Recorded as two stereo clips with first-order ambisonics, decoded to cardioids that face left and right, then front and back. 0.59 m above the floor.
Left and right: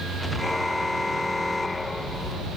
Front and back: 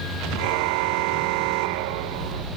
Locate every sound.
0.4 s a car horn: 175° left; by 2.5 s 170° left